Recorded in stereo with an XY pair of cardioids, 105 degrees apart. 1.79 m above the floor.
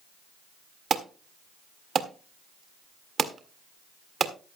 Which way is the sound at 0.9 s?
45° right.